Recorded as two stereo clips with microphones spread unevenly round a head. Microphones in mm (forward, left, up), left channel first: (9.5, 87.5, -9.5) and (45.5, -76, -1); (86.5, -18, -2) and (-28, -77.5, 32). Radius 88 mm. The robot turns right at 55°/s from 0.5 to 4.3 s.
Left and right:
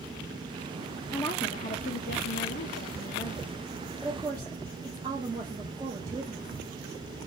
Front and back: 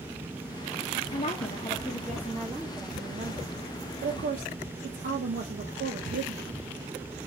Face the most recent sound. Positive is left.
turn(degrees=-145)